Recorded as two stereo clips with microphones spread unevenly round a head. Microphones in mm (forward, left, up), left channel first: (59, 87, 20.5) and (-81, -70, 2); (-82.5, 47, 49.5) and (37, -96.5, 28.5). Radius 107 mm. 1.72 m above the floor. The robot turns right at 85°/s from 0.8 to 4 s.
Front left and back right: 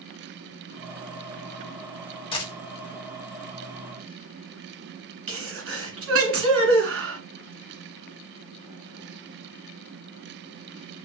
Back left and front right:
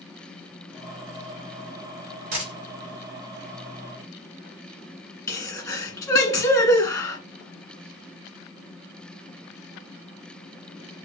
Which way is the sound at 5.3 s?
160° right.